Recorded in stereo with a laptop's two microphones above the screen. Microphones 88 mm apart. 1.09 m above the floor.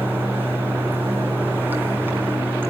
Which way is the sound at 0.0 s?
25° right (ahead or behind).